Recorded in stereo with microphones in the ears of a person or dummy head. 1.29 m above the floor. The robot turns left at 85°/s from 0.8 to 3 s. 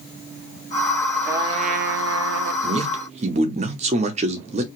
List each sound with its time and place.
1.3 s a trumpet: 15° right, 0.6 m; by 2.5 s 120° right, 0.6 m
2.6 s a man speaking: 60° right, 0.6 m; by 4.7 s 95° right, 0.6 m